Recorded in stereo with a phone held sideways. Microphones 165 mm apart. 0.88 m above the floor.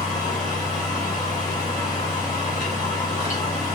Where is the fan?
50° left (ahead or behind), 1.3 m.